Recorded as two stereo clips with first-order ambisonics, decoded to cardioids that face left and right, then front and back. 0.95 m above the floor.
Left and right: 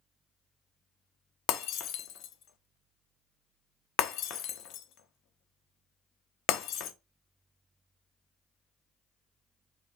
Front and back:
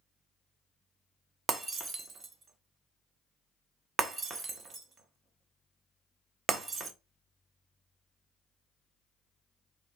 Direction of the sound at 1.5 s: 120° left.